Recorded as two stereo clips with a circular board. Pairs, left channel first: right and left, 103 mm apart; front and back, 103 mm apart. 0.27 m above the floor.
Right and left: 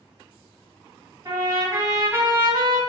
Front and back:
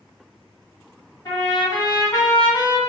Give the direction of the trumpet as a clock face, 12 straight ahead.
10 o'clock.